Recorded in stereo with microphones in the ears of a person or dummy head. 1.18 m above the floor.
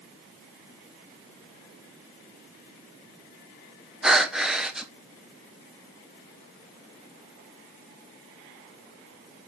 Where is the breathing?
5° left (ahead or behind), 0.7 m.